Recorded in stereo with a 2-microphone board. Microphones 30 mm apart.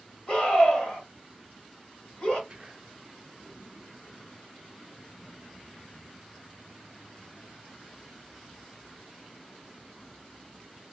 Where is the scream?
30° left (ahead or behind), 2 m.